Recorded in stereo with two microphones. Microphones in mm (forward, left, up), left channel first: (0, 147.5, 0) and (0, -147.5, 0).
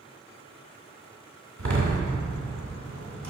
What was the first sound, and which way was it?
A door slam, 65° right (ahead or behind).